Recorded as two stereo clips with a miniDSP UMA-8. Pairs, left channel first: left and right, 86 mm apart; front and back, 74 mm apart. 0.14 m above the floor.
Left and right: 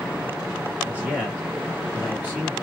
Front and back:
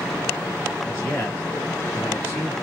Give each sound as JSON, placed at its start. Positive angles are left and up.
{"t": 0.8, "sound": "a man speaking", "azimuth_deg": -40, "distance_m": 1.6}